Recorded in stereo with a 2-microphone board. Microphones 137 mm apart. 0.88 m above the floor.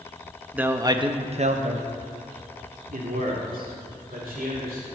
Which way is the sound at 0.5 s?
10° right (ahead or behind).